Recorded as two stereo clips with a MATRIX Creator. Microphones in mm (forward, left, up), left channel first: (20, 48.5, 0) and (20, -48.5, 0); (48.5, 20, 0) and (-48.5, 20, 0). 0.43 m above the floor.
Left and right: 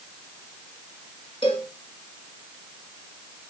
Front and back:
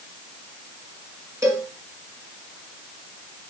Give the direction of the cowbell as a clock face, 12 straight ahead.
8 o'clock.